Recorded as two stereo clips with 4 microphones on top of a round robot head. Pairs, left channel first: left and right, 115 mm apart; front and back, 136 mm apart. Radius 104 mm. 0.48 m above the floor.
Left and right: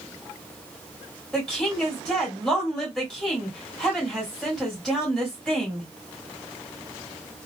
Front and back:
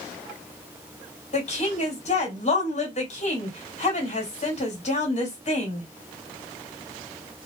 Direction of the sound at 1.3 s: 5° left.